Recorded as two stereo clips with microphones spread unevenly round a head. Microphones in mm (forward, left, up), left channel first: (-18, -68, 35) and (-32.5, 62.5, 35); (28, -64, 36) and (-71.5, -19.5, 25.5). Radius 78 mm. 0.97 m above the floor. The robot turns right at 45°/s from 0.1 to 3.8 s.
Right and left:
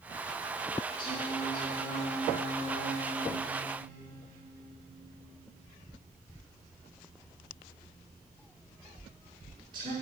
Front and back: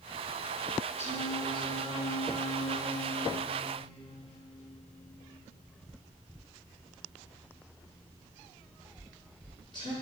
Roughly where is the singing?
Right.